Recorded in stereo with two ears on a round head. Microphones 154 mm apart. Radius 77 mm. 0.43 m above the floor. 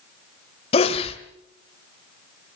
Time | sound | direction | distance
0.7 | a sneeze | 35° left (ahead or behind) | 1.6 m